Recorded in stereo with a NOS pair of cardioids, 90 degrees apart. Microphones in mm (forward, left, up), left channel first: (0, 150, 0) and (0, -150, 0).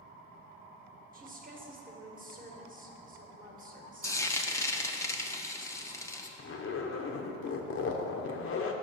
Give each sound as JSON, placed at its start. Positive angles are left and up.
{"t": 1.1, "sound": "a woman speaking", "azimuth_deg": -30, "distance_m": 1.2}
{"t": 4.0, "sound": "frying", "azimuth_deg": 10, "distance_m": 0.6}
{"t": 6.4, "sound": "a zipper", "azimuth_deg": 45, "distance_m": 0.7}